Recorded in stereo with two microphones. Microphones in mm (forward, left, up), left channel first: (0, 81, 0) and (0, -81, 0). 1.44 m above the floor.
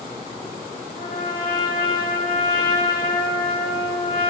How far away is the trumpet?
About 3 m.